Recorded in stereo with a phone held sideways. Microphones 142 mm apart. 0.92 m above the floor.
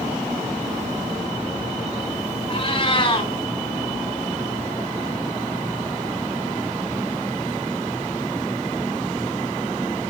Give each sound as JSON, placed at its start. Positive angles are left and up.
{"t": 2.5, "sound": "a cat meowing", "side_deg": 35, "distance_m": 4.5}